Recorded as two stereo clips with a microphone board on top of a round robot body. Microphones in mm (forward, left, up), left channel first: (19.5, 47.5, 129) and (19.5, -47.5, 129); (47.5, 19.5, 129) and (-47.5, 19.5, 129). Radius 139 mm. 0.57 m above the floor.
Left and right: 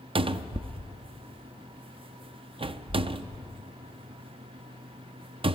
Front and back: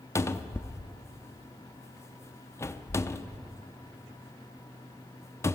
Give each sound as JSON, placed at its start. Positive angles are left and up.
{"t": 0.1, "sound": "a cupboard door", "azimuth_deg": -60, "distance_m": 0.5}